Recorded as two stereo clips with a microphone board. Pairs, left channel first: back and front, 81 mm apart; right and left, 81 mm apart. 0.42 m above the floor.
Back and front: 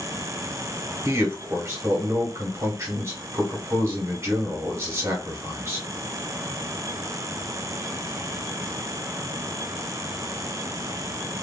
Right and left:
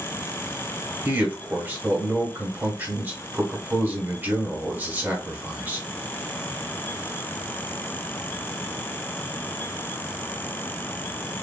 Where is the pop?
I don't hear a pop.